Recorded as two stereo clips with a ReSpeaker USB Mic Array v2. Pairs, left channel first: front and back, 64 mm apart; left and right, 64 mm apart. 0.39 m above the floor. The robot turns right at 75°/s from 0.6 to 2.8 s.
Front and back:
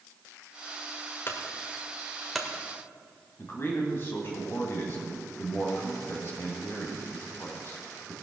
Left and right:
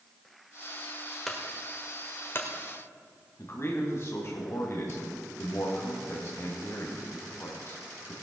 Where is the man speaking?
50° left, 2 m.